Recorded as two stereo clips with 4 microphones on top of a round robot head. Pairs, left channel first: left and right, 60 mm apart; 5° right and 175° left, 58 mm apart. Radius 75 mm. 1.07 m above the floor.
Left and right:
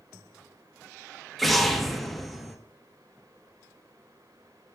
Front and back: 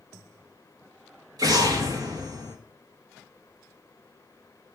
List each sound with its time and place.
1.4 s an explosion: straight behind, 1.7 m